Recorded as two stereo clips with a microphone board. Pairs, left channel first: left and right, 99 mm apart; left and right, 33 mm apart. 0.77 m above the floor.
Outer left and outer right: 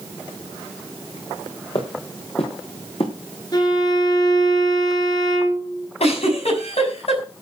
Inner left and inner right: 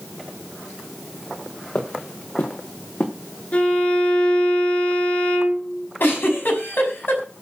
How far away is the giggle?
About 5.5 m.